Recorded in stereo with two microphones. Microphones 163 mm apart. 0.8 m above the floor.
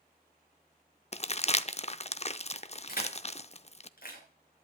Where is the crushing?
60° left (ahead or behind), 6 m.